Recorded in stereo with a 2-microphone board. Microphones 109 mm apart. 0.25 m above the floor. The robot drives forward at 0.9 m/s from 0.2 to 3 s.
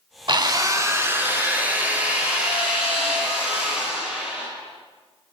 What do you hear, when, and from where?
0.3 s a drill: 50° right (ahead or behind), 0.6 m; by 4.5 s 10° right (ahead or behind), 3 m